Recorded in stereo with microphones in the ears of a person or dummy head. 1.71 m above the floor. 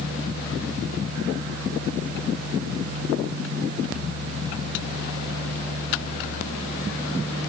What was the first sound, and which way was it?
Only background noise.